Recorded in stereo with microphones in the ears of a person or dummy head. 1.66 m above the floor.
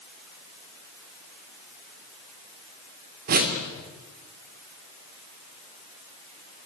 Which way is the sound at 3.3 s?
45° right (ahead or behind).